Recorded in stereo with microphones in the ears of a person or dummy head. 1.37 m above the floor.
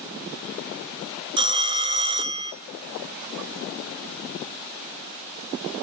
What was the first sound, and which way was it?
A phone ringing, 25° right (ahead or behind).